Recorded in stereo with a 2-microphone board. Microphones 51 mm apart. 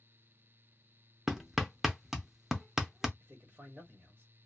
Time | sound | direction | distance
1.3 | hammering | 10° right (ahead or behind) | 0.5 m
3.2 | a man speaking | 40° right (ahead or behind) | 1.5 m